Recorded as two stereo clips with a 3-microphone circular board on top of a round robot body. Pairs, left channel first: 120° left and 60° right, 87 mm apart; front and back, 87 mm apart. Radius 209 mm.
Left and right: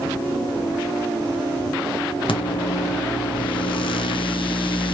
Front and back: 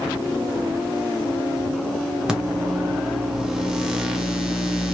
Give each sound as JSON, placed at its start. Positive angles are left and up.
{"t": 2.3, "sound": "a microwave", "azimuth_deg": 95, "distance_m": 0.8}